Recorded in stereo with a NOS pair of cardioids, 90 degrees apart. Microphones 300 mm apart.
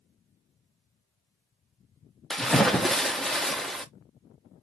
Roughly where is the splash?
Ahead.